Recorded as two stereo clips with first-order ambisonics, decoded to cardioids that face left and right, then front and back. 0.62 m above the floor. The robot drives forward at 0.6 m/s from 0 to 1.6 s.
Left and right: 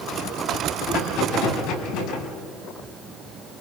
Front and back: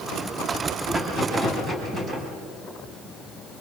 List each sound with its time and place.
0.9 s a rattle: 105° left, 5 m; by 2.3 s 110° left, 5 m